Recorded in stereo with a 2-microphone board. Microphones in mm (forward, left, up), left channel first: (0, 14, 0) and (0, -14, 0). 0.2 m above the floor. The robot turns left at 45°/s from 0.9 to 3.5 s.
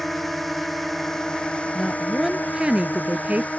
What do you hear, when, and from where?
0.0 s a drone: 170° left; by 3.6 s 55° left
1.8 s a woman speaking: 5° left; by 3.5 s 75° right